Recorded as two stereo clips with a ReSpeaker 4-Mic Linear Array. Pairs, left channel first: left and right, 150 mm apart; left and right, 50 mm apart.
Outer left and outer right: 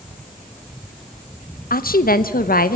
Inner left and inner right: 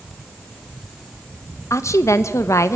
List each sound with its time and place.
1.7 s a woman speaking: 80° left, 1.0 m